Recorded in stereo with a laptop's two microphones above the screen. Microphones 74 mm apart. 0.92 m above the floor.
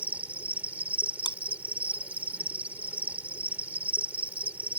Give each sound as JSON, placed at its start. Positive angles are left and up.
{"t": 0.0, "sound": "an insect", "side_deg": -20}
{"t": 1.2, "sound": "chewing", "side_deg": 75}